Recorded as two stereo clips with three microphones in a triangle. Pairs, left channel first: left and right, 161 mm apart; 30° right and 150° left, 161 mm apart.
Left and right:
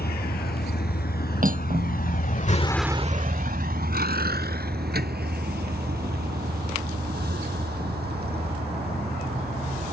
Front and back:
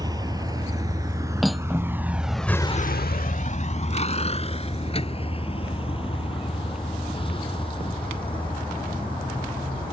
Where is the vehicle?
85° left; by 9.9 s 90° right.